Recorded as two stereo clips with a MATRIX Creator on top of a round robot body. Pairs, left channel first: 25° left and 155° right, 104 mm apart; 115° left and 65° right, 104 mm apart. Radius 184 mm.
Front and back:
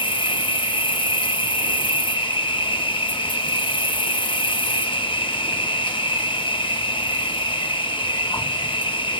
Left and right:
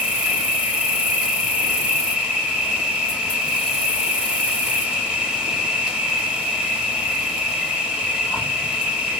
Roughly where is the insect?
Ahead.